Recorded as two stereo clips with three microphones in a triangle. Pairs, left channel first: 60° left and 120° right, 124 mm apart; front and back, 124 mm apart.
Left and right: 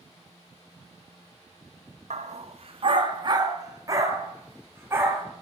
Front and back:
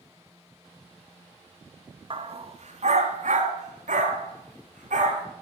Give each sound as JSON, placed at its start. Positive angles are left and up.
{"t": 2.1, "sound": "a dog barking", "azimuth_deg": -140, "distance_m": 0.7}